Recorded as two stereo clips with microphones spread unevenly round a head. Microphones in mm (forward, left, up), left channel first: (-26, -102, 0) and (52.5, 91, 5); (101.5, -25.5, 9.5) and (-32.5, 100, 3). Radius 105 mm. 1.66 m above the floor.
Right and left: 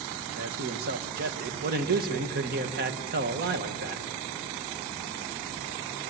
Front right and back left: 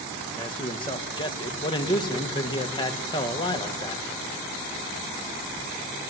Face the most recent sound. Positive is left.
turn(degrees=20)